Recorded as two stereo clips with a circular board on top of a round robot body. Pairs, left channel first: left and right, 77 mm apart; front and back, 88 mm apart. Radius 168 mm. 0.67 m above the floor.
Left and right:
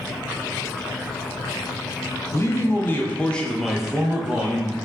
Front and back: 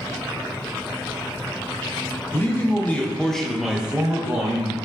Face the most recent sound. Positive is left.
turn(degrees=-135)